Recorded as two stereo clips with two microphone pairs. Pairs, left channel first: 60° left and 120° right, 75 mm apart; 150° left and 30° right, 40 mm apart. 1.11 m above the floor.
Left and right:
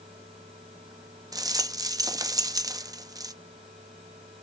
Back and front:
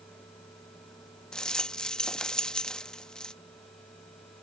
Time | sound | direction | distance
1.3 | a rattle | 140° right | ?